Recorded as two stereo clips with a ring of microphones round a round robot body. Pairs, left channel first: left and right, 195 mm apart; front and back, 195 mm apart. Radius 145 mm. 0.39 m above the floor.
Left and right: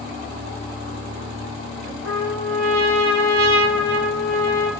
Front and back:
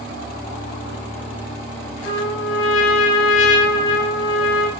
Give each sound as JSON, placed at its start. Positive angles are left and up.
{"t": 2.0, "sound": "a trumpet", "azimuth_deg": 0, "distance_m": 0.9}